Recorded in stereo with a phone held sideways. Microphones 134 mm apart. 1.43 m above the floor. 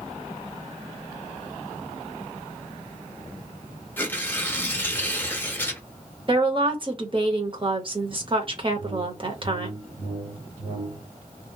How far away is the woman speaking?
About 0.9 m.